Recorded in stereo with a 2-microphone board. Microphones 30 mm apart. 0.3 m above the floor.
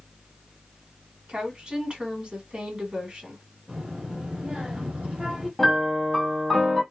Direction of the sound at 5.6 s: 5° left (ahead or behind).